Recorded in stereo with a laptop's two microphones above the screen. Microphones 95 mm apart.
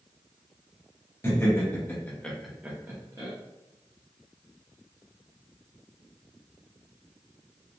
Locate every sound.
1.2 s laughter: 30° left (ahead or behind), 1.3 m; by 3.3 s 45° right (ahead or behind), 0.7 m